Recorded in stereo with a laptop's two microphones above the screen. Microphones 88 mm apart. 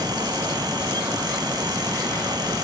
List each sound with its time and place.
0.0 s a fan: 55° right (ahead or behind), 1.6 m